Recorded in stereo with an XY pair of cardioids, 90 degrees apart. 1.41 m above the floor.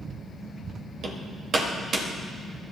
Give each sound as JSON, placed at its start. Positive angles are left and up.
{"t": 1.0, "sound": "hammering", "azimuth_deg": -60, "distance_m": 2.5}